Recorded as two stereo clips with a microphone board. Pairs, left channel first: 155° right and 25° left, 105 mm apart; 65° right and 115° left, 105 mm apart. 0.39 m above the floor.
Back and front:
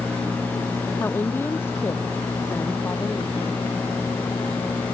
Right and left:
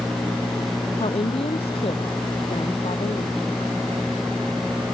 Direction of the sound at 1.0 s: 90° right.